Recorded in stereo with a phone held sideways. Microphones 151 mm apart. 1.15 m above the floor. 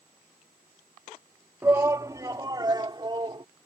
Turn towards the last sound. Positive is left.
turn(degrees=-30)  # may be behind; listen again after turning